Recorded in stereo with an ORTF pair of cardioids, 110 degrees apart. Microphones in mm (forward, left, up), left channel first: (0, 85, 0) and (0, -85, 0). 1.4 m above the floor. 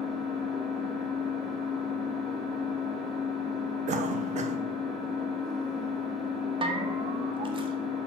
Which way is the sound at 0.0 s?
Straight ahead.